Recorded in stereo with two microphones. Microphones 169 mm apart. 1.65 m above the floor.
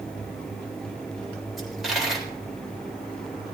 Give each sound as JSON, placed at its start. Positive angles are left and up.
{"t": 1.6, "sound": "a dropped coin", "side_deg": 0, "distance_m": 3.5}